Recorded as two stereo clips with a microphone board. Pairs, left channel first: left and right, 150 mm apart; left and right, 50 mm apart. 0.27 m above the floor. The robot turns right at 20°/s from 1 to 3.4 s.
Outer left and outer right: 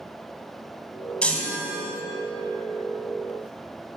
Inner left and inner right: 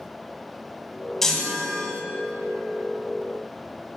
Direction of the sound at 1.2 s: 5° left (ahead or behind).